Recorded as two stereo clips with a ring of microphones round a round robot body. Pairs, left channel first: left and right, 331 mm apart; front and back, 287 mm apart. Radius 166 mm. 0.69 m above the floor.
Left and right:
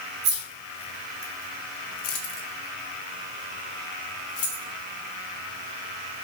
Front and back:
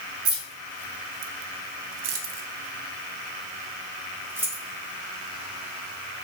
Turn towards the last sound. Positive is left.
turn(degrees=90)